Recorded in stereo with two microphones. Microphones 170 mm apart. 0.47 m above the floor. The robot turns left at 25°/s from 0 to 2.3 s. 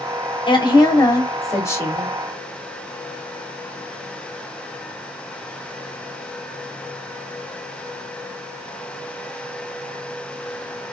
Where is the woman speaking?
60° left, 1.0 m; by 2.1 s 20° left, 1.0 m.